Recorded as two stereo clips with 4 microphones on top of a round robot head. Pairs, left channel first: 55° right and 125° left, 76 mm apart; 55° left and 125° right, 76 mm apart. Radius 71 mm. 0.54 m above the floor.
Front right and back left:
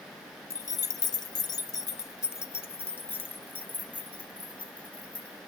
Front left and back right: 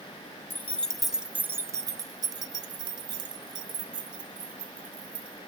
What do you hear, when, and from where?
0.5 s keys jangling: 10° right, 0.7 m; by 5.4 s 125° right, 2.5 m